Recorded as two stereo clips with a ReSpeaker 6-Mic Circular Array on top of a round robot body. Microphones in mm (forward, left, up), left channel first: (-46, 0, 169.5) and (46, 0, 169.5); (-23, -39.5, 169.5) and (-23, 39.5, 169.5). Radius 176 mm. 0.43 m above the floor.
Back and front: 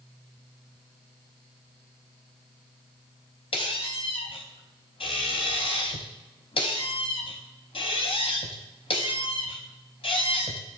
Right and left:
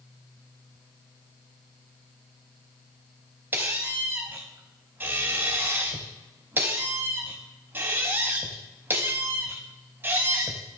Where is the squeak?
155° left, 0.5 m.